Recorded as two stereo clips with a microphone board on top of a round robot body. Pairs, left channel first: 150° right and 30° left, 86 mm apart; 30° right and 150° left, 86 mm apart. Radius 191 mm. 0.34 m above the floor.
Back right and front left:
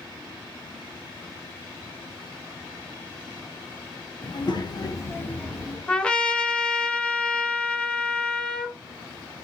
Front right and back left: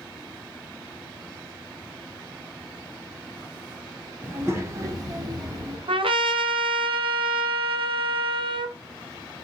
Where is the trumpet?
130° left, 0.7 m.